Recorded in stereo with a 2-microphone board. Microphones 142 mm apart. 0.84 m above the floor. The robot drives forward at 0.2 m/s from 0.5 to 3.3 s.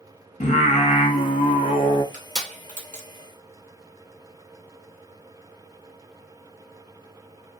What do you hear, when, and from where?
0.4 s singing: 50° left (ahead or behind), 0.7 m; by 2.0 s 40° left (ahead or behind), 0.8 m
2.1 s crushing: 60° right (ahead or behind), 1.1 m; by 3.1 s 55° right (ahead or behind), 1.2 m